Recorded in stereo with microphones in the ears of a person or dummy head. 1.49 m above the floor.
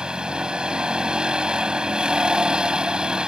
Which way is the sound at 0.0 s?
10° right (ahead or behind).